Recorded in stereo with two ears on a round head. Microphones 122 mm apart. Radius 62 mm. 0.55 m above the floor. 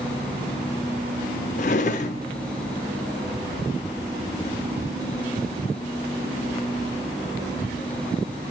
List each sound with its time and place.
1.6 s a drawer: 55° left (ahead or behind), 0.5 m